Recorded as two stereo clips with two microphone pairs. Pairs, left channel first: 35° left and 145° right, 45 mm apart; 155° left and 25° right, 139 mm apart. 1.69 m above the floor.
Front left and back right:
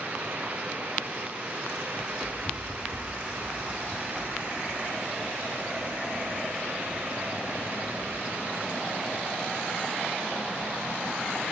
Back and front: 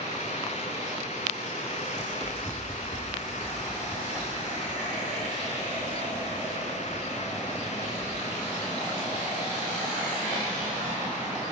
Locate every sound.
2.0 s running footsteps: 75° left, 2 m; by 8.2 s 95° right, 3.5 m